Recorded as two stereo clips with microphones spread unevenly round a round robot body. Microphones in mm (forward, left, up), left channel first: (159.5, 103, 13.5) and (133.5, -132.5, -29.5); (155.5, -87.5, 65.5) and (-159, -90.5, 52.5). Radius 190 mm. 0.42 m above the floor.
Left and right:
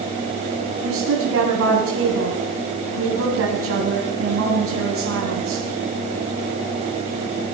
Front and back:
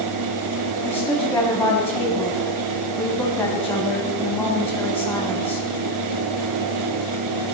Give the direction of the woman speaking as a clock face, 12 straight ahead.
3 o'clock.